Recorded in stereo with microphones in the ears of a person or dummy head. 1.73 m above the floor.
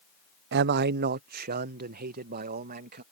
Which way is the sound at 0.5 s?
45° right (ahead or behind).